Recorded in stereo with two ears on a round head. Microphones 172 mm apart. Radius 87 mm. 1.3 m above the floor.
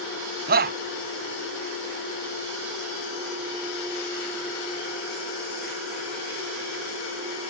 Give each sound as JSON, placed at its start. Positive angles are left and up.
{"t": 0.5, "sound": "a shout", "side_deg": -55}